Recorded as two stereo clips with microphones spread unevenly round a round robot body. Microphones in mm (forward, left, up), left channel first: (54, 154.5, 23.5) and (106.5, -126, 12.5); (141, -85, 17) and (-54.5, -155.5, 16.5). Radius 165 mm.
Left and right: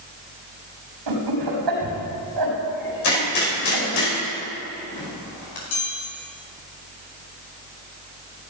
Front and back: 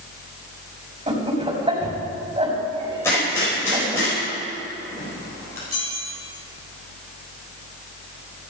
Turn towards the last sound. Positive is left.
turn(degrees=125)